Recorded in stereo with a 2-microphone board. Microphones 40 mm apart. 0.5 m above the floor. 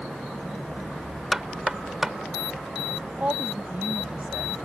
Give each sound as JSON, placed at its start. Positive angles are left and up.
{"t": 1.3, "sound": "knocking", "side_deg": -10}
{"t": 3.1, "sound": "a woman speaking", "side_deg": -40}